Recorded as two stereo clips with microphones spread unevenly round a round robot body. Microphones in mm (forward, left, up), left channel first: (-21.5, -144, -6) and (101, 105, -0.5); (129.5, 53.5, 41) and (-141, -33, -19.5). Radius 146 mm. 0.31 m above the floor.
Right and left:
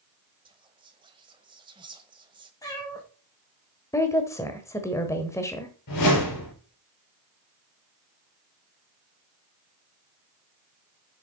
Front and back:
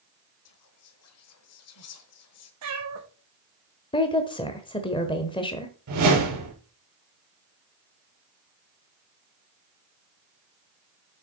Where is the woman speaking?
60° right, 1.1 m.